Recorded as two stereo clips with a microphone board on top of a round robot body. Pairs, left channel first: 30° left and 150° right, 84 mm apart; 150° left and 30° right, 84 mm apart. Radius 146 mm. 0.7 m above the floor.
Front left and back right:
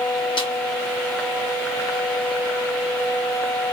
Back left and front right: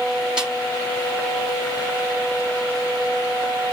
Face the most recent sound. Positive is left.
turn(degrees=55)